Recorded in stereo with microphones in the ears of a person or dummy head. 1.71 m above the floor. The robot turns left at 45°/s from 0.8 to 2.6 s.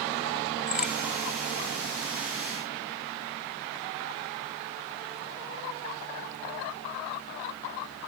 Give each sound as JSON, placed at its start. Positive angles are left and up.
{"t": 0.7, "sound": "a crack", "side_deg": -5, "distance_m": 1.7}